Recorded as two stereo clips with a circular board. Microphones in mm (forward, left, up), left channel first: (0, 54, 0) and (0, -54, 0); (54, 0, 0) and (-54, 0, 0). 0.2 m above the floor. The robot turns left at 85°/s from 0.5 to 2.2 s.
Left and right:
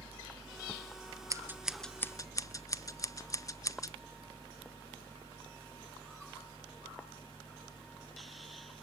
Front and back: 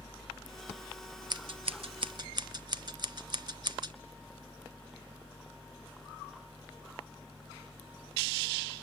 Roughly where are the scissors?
Behind right.